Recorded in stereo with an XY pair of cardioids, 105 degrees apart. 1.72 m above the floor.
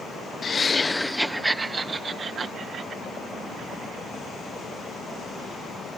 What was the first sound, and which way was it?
Laughter, 40° left.